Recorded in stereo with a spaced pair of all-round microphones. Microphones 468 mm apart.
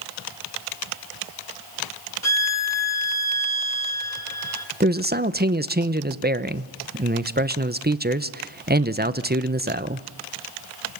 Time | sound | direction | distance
2.2 | a violin | 30° left (ahead or behind) | 1.8 m
4.8 | a man speaking | 20° right (ahead or behind) | 0.9 m